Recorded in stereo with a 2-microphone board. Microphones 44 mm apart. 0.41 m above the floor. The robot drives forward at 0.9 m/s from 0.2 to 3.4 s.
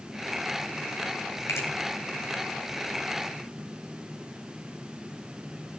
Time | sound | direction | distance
1.5 | a finger snap | 70° left (ahead or behind) | 4 m